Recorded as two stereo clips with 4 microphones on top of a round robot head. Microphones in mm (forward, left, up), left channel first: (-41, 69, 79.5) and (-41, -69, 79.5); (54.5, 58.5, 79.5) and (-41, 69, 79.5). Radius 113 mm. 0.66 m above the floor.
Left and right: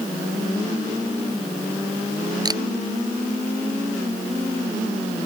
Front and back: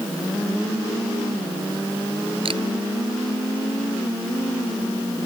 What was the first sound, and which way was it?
A camera shutter, 150° right.